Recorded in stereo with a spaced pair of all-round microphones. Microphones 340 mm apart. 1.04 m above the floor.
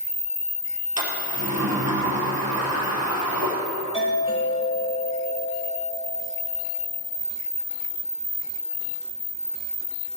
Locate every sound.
1.0 s a sliding door: 50° right (ahead or behind), 4 m
3.9 s a doorbell: 15° left (ahead or behind), 6 m